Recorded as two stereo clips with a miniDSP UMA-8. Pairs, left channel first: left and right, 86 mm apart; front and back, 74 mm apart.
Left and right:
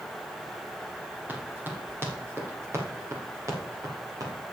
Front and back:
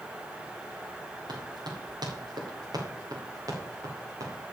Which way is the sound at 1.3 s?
160° right.